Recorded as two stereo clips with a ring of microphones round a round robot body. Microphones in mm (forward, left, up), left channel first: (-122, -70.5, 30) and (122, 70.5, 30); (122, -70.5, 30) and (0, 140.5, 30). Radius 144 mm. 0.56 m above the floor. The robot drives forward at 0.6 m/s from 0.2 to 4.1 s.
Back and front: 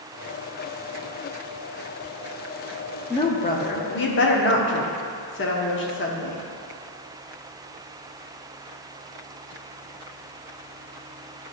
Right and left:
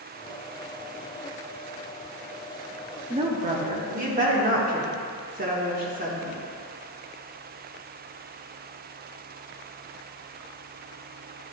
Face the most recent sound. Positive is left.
turn(degrees=170)